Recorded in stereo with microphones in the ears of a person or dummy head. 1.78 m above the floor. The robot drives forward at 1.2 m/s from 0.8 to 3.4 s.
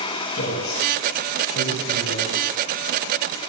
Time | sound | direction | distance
0.3 | a man speaking | 50° left (ahead or behind) | 9.5 m